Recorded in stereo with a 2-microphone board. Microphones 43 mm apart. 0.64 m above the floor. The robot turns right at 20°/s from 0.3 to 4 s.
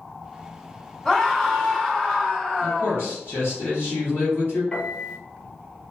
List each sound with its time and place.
1.1 s a scream: 20° left, 1.5 m; by 3.1 s 60° left, 1.5 m
2.6 s a man speaking: 65° left (ahead or behind), 1.4 m; by 4.6 s 60° left (ahead or behind), 1.4 m
4.7 s a piano: 25° left (ahead or behind), 0.8 m